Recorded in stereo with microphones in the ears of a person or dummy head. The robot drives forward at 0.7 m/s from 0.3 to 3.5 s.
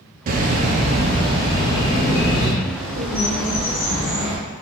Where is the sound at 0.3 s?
40° right (ahead or behind), 0.6 m; by 2.5 s 15° right (ahead or behind), 1.6 m.